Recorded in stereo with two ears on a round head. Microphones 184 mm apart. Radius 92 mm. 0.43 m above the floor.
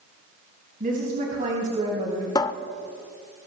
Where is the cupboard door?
20° left (ahead or behind), 0.8 m.